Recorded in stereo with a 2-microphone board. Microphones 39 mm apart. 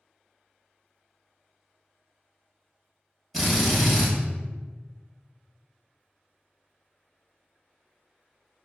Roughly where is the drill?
Centre.